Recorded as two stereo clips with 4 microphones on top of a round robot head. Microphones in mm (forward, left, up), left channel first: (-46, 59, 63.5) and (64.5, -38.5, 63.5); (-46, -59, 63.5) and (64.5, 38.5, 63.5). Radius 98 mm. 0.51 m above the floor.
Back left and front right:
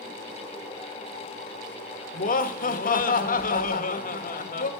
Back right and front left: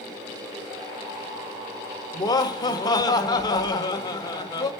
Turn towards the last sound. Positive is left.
turn(degrees=160)